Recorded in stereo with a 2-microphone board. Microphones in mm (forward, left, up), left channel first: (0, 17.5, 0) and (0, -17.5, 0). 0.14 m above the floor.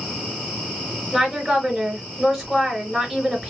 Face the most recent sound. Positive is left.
turn(degrees=5)  # may be behind; listen again after turning